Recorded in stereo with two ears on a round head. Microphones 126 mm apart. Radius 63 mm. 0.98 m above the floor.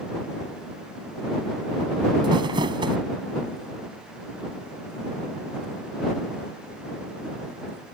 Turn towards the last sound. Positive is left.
turn(degrees=-35)  # may be behind; listen again after turning